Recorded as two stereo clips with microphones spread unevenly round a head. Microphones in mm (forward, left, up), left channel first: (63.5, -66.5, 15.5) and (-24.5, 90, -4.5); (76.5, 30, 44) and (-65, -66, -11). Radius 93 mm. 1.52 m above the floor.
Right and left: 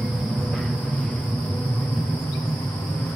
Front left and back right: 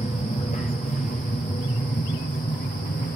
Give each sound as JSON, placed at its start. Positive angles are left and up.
{"t": 0.0, "sound": "an aircraft", "azimuth_deg": 35}